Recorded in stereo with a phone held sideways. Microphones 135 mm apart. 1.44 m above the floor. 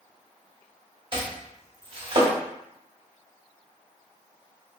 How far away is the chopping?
About 1.2 m.